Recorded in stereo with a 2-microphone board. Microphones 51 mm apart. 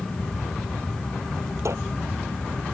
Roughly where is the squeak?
Right.